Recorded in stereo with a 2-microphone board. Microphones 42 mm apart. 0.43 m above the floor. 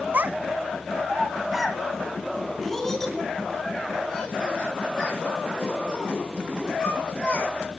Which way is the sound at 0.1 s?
45° right (ahead or behind).